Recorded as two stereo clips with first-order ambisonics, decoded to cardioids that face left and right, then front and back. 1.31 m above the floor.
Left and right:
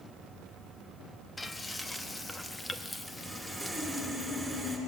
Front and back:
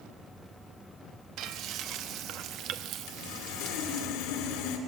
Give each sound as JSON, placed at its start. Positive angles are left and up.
{"t": 1.4, "sound": "frying", "azimuth_deg": 170, "distance_m": 0.8}
{"t": 3.1, "sound": "sawing", "azimuth_deg": 0, "distance_m": 2.5}